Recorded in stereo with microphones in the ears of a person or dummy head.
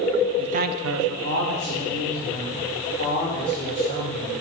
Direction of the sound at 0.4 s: 25° right (ahead or behind).